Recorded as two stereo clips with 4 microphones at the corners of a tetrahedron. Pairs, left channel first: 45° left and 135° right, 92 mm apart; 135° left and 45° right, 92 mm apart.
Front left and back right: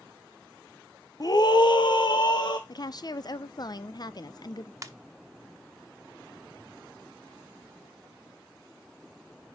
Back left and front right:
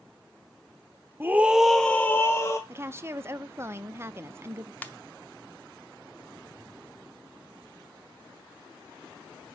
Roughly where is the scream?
Ahead.